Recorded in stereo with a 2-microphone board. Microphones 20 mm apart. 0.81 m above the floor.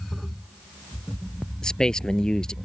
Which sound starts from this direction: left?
A man speaking, at 1.6 s.